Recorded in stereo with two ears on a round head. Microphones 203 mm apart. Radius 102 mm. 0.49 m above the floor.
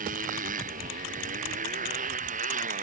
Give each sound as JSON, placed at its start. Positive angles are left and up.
{"t": 0.0, "sound": "a motorcycle", "side_deg": -40}